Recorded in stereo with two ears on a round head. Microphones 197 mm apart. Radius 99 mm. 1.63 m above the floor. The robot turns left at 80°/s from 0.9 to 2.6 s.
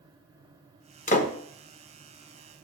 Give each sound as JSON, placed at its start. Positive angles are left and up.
{"t": 1.1, "sound": "a door slam", "side_deg": 35, "distance_m": 1.0}